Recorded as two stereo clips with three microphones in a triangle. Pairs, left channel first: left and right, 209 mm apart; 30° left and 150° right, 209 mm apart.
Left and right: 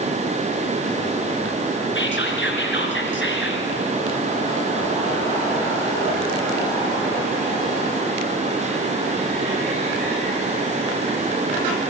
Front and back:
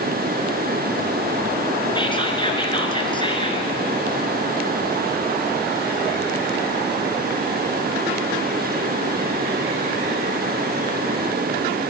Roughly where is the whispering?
Left.